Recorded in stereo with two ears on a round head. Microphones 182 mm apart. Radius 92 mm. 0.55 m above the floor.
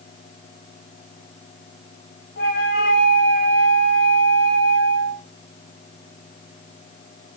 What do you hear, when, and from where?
2.4 s a flute: 55° left (ahead or behind), 1.5 m